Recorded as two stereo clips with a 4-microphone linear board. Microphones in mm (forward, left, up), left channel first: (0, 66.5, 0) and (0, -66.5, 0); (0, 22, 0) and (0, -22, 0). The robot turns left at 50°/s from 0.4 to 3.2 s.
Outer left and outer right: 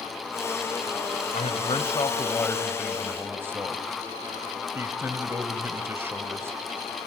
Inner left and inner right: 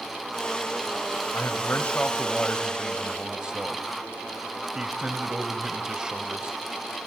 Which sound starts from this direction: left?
A man speaking, at 1.3 s.